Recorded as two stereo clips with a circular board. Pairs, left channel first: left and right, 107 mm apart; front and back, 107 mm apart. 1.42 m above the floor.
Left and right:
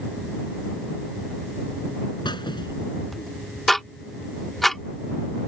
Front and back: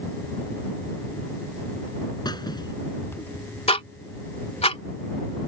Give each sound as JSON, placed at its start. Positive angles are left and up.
{"t": 2.2, "sound": "a squeak", "azimuth_deg": 45}
{"t": 3.7, "sound": "ticking", "azimuth_deg": 0}